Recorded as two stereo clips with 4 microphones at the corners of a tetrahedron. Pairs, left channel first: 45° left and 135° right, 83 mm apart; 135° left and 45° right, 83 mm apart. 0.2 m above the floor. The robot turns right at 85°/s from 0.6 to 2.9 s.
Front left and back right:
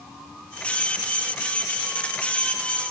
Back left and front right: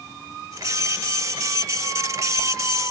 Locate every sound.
Only background noise.